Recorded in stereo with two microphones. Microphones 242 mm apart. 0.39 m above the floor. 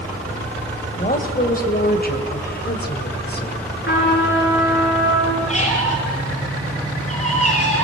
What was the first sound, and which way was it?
A woman speaking, 35° left (ahead or behind).